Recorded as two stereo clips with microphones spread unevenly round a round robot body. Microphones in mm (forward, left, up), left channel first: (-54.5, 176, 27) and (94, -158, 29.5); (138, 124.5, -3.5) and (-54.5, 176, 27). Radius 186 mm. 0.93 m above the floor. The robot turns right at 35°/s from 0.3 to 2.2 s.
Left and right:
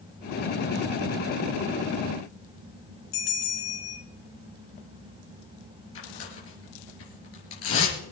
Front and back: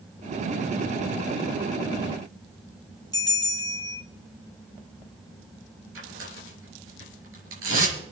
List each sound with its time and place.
3.1 s a bell: 55° left, 3.5 m
6.0 s tearing paper: 170° left, 4 m